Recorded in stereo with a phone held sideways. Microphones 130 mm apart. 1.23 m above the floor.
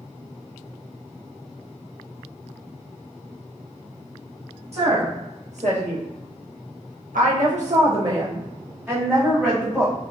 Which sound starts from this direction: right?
A woman speaking, at 4.7 s.